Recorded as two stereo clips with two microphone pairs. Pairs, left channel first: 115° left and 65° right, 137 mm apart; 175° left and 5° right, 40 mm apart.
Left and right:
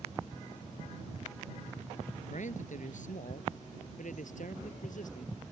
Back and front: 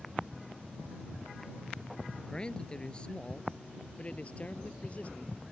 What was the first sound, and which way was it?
A man speaking, 105° left.